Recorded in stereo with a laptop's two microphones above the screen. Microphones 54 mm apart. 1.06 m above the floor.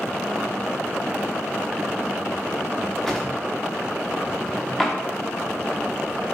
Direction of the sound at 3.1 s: 10° left (ahead or behind).